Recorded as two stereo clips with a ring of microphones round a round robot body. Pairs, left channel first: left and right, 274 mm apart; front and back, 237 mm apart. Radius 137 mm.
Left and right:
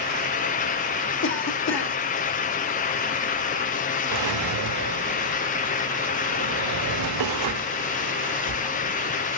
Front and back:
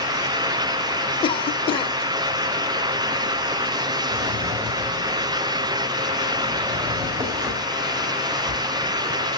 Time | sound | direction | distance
1.2 | a cough | 60° left | 1.3 m
4.1 | a drawer | 100° right | 0.9 m